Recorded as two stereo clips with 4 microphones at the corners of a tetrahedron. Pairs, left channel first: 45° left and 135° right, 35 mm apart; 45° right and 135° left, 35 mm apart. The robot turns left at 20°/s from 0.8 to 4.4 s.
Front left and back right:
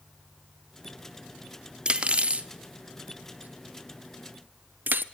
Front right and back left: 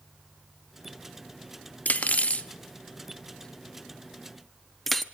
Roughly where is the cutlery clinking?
Right.